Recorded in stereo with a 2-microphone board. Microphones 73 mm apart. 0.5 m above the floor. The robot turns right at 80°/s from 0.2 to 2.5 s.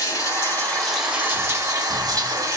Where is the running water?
120° left, 1.1 m; by 2.6 s 55° right, 1.1 m.